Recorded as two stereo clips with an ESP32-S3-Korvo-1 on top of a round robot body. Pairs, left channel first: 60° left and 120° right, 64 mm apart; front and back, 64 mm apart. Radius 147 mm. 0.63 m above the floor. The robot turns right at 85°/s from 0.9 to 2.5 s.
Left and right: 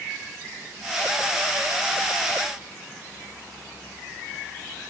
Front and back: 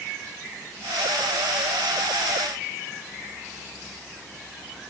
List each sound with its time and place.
Only background noise.